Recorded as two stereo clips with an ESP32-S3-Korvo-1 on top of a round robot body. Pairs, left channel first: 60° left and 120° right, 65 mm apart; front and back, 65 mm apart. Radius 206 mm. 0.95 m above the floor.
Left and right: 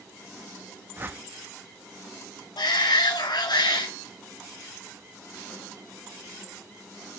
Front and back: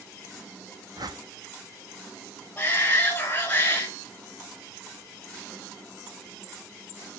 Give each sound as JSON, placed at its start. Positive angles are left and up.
{"t": 1.0, "sound": "a whoosh", "azimuth_deg": -175, "distance_m": 1.5}
{"t": 2.6, "sound": "a shout", "azimuth_deg": 70, "distance_m": 2.5}